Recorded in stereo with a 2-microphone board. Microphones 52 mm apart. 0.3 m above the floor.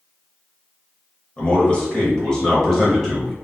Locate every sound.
1.4 s a man speaking: 25° left (ahead or behind), 1.2 m; by 3.3 s 5° left (ahead or behind), 1.5 m